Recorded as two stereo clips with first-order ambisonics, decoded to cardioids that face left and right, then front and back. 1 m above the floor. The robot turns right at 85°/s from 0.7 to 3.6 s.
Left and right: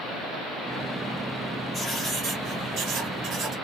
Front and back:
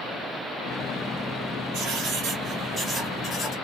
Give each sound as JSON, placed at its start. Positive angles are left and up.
{"t": 1.7, "sound": "writing", "azimuth_deg": 170, "distance_m": 1.3}